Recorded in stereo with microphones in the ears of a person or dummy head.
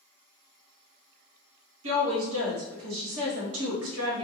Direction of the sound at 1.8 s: 80° right.